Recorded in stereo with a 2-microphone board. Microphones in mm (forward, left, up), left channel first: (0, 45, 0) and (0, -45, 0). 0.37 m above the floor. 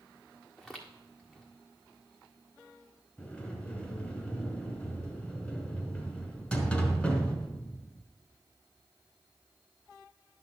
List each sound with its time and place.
0.6 s footsteps: centre (ahead or behind), 1.6 m
3.2 s a sliding door: 10° left (ahead or behind), 1.8 m